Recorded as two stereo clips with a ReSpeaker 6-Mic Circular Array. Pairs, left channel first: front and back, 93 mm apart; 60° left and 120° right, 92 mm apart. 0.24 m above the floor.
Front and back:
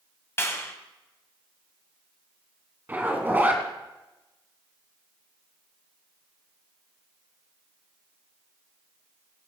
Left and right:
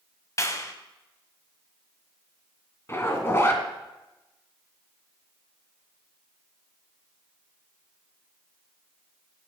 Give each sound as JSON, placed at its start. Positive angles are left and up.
{"t": 0.4, "sound": "a clap", "azimuth_deg": 40, "distance_m": 1.5}
{"t": 2.9, "sound": "a zipper", "azimuth_deg": 115, "distance_m": 2.0}